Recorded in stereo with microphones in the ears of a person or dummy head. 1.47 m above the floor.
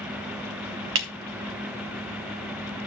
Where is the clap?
75° right (ahead or behind), 1.6 m.